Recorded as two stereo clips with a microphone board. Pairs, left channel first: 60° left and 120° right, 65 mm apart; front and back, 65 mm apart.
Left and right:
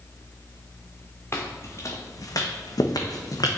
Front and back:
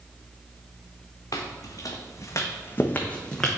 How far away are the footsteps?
About 1.2 m.